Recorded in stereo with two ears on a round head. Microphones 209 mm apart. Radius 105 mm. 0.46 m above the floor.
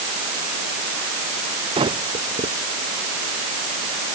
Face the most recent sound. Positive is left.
turn(degrees=-20)  # may be behind; listen again after turning